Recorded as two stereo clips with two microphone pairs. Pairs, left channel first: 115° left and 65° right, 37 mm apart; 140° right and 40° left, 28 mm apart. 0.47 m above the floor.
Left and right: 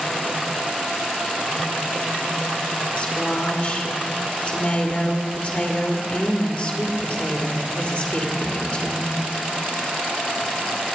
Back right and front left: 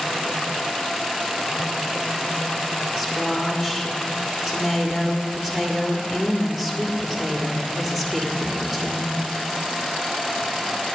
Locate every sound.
3.0 s a woman speaking: 115° left, 1.7 m